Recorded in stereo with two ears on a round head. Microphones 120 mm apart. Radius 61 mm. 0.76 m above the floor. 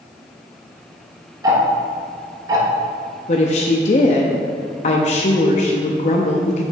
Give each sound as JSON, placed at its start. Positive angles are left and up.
{"t": 1.4, "sound": "ticking", "side_deg": -25, "distance_m": 1.1}
{"t": 3.3, "sound": "a woman speaking", "side_deg": 55, "distance_m": 0.6}